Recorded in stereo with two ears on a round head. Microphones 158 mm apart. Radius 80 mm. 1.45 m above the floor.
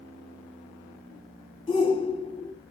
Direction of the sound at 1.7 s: 30° left (ahead or behind).